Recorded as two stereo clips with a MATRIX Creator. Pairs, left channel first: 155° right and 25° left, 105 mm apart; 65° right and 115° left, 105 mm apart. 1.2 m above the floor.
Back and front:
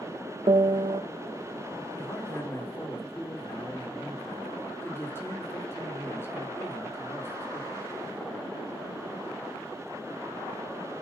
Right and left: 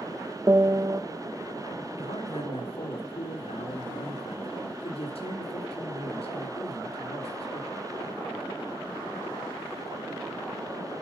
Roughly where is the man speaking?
Right.